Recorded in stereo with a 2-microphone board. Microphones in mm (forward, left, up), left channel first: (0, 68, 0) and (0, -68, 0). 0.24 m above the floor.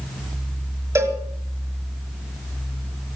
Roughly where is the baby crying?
No baby crying in this recording.